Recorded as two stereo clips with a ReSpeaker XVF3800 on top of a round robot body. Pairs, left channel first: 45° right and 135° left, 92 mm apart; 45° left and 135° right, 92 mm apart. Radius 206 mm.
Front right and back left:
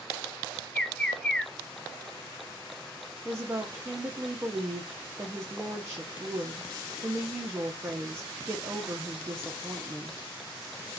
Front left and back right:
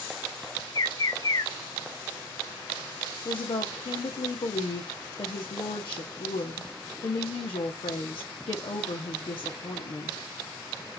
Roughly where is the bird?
Ahead left.